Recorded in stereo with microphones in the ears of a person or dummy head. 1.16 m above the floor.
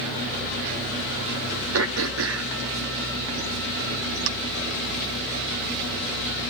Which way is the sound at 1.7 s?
80° right.